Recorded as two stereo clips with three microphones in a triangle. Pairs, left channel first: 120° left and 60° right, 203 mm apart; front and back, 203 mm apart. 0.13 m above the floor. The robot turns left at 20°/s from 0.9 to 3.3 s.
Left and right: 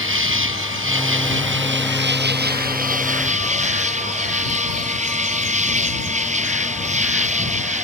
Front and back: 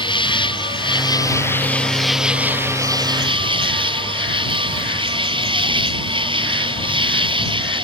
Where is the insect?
65° right; by 7.8 s 115° right.